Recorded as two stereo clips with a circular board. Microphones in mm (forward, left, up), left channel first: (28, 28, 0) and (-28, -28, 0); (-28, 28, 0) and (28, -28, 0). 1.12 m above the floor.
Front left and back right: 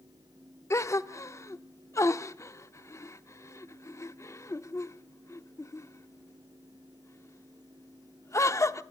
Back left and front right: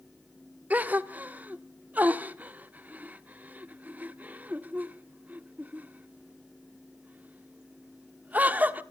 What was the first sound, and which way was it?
A gasp, 15° left.